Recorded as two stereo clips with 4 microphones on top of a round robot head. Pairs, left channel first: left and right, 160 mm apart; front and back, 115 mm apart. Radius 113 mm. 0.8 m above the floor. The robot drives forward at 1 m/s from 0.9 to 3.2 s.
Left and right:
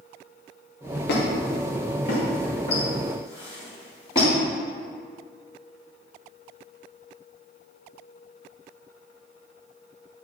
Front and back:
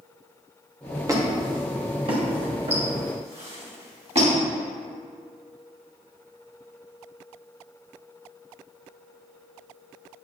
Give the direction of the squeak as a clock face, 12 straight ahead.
8 o'clock.